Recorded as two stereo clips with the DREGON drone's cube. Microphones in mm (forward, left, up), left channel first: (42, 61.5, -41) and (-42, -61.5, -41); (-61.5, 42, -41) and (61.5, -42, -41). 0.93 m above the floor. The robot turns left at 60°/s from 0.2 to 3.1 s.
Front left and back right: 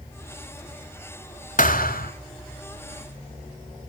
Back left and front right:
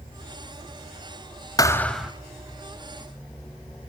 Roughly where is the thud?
Left.